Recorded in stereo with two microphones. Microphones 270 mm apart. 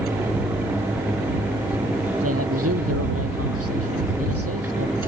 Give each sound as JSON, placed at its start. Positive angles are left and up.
{"t": 2.2, "sound": "a man speaking", "side_deg": -60}